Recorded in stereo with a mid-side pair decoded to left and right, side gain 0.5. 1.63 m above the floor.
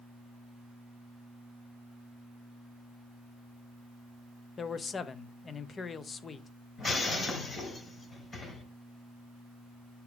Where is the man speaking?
40° left, 1.0 m.